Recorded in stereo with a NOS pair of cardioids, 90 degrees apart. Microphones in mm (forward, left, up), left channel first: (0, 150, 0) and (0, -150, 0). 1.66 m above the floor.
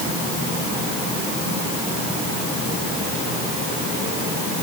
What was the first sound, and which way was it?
Only background noise.